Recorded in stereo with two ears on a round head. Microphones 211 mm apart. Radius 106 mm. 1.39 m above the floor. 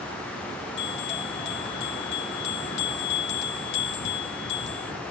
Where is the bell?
50° left (ahead or behind), 1.8 m.